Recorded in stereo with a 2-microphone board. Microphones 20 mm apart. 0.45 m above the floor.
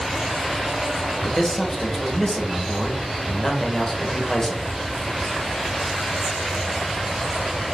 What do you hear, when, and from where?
1.2 s a man speaking: 25° left (ahead or behind), 1.3 m